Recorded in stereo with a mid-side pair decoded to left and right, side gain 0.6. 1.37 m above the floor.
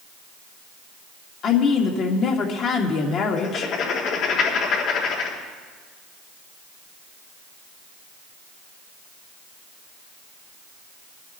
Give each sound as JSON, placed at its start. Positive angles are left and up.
{"t": 1.4, "sound": "a woman speaking", "azimuth_deg": 55, "distance_m": 2.5}
{"t": 3.4, "sound": "writing", "azimuth_deg": 65, "distance_m": 4.0}